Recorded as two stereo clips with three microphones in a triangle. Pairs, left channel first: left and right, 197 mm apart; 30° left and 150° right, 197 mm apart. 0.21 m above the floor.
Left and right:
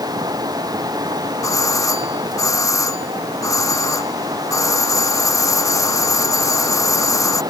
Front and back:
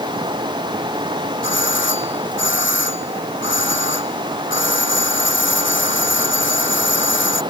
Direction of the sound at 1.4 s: 15° left.